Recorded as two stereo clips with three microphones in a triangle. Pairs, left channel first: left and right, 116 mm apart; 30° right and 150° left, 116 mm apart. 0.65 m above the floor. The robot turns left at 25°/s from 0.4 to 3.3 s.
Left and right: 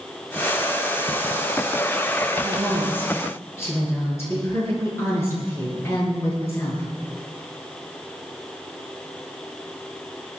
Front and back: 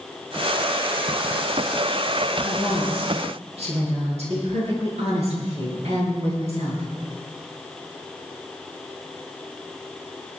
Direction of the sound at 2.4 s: Straight behind.